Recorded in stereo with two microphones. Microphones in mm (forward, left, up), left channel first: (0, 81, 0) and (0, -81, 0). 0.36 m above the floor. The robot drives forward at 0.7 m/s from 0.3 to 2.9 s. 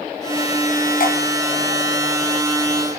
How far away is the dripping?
About 3 m.